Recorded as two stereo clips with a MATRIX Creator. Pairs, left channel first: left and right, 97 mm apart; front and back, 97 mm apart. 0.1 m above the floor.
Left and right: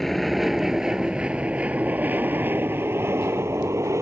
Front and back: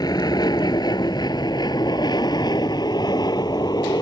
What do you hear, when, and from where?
0.0 s an aircraft: straight ahead; by 4.0 s 35° right